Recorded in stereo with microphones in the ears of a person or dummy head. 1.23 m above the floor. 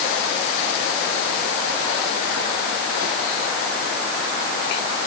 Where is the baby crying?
No baby crying in this recording.